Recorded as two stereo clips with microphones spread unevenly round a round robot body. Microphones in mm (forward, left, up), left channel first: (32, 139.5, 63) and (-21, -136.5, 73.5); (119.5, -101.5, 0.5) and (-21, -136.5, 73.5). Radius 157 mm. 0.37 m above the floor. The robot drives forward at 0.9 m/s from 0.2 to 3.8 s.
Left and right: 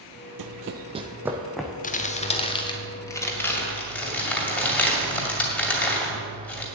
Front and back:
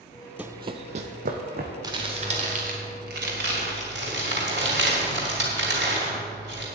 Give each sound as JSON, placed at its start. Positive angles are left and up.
{"t": 0.4, "sound": "running footsteps", "azimuth_deg": -110, "distance_m": 0.5}
{"t": 1.8, "sound": "crumpling", "azimuth_deg": 100, "distance_m": 1.1}